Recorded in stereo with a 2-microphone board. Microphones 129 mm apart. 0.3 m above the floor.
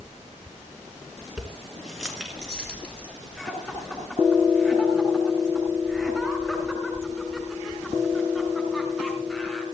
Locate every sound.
1.4 s keys jangling: 5° right (ahead or behind), 2.5 m; by 3.1 s 10° left (ahead or behind), 4.5 m
3.4 s laughter: centre (ahead or behind), 4 m